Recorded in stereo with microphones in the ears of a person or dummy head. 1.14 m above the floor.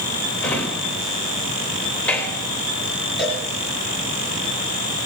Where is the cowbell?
Centre (ahead or behind), 5 m.